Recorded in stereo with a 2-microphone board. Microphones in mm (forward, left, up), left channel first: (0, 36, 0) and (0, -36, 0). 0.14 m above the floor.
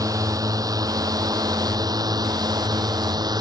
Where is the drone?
55° right (ahead or behind); by 3.4 s 70° right (ahead or behind).